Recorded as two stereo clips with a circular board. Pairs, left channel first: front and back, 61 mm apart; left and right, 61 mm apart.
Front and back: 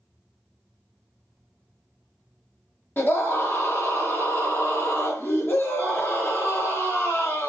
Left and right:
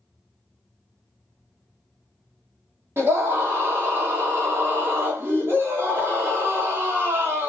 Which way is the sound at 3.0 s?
50° right.